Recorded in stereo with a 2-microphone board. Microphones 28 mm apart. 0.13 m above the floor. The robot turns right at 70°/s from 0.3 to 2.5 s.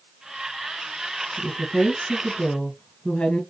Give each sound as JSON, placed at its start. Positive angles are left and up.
{"t": 1.4, "sound": "a woman speaking", "azimuth_deg": 5, "distance_m": 1.6}